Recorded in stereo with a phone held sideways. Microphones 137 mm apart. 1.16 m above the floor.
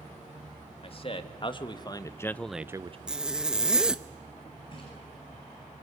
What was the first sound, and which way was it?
A man speaking, 45° left (ahead or behind).